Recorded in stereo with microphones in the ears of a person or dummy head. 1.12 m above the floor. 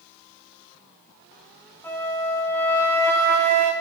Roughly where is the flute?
Centre.